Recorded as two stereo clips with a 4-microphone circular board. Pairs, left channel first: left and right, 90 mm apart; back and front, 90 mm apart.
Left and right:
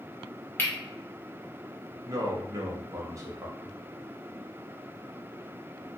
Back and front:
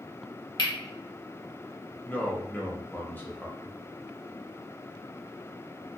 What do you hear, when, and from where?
0.6 s cutlery clinking: 155° left, 0.8 m
2.0 s a man speaking: 120° right, 0.8 m